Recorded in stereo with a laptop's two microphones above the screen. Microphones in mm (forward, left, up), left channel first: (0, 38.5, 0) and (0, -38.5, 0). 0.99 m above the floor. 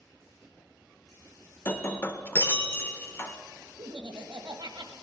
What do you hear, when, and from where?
1.6 s breaking glass: 30° left (ahead or behind), 0.7 m
3.8 s laughter: 65° right (ahead or behind), 1.2 m